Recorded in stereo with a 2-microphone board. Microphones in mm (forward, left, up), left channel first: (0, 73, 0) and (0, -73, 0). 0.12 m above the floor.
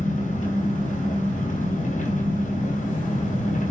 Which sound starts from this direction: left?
An engine running, at 0.0 s.